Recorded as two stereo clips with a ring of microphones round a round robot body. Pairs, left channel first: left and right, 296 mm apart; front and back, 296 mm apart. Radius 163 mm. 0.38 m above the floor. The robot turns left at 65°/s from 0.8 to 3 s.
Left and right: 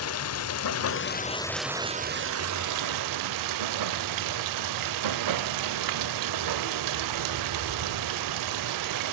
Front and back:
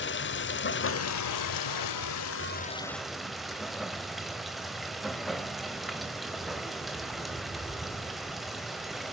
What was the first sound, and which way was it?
Running water, 50° left.